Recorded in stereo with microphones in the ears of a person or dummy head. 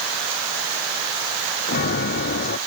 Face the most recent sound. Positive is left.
turn(degrees=50)  # may be behind; listen again after turning